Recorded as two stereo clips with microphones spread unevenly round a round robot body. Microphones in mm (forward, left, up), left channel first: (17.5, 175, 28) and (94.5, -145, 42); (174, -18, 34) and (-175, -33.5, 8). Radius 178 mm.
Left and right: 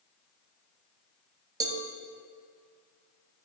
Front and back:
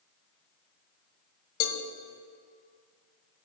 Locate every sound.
1.6 s a cowbell: straight ahead, 0.6 m